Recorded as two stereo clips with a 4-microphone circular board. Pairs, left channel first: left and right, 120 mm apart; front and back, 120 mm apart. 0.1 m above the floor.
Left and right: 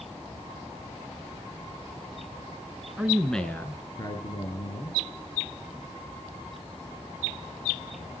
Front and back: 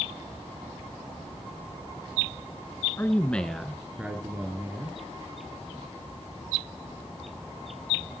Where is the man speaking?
35° right, 1.3 m; by 5.0 s 115° left, 2.5 m.